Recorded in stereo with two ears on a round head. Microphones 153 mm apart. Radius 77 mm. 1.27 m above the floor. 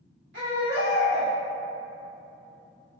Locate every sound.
0.3 s a baby crying: 80° right, 2.0 m